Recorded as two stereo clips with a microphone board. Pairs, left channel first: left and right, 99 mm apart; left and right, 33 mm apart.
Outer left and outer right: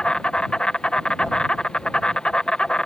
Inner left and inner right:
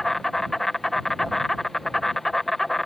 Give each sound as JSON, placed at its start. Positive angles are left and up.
{"t": 0.0, "sound": "an insect", "side_deg": 10}